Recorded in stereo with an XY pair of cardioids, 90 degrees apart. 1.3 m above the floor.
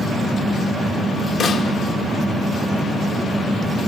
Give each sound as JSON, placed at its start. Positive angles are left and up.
{"t": 1.4, "sound": "a snare drum", "azimuth_deg": 70, "distance_m": 2.5}